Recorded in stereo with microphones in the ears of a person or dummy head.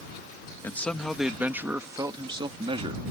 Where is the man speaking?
5° left (ahead or behind); by 3.0 s 35° right (ahead or behind).